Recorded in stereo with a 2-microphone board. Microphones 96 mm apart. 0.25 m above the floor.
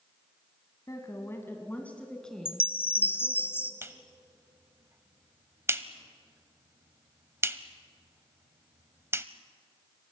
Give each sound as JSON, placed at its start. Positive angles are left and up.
{"t": 0.9, "sound": "a woman speaking", "side_deg": 35, "distance_m": 1.9}
{"t": 2.5, "sound": "a chime", "side_deg": 25, "distance_m": 1.3}
{"t": 3.8, "sound": "a clap", "side_deg": -25, "distance_m": 0.8}